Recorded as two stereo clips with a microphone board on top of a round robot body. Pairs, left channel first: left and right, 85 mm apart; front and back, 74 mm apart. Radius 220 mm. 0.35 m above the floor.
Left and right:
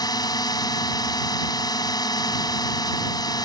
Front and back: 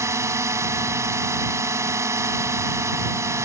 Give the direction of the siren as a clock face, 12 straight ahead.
I don't hear a siren.